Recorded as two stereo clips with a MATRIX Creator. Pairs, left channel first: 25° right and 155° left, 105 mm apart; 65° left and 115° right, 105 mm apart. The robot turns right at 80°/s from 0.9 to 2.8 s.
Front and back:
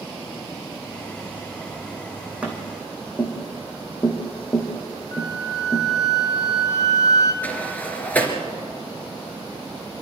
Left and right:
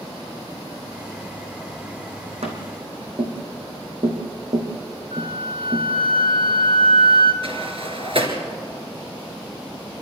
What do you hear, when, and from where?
2.4 s tapping: 125° right, 3.5 m; by 5.9 s 95° right, 3.5 m
5.1 s a flute: 80° right, 1.6 m
7.4 s a sliding door: 95° right, 2.5 m